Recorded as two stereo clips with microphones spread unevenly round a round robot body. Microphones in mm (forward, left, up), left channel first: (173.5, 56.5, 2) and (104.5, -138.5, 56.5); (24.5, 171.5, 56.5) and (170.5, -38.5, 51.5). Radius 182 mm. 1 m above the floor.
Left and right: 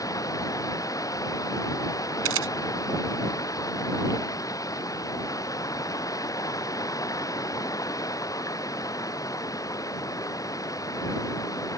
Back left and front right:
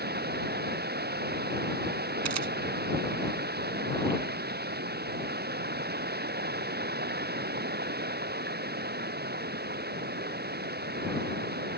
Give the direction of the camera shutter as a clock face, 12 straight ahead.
3 o'clock.